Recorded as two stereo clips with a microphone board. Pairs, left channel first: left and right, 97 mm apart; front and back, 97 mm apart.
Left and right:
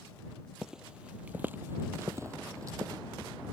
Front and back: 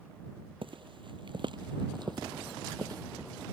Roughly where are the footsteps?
Behind.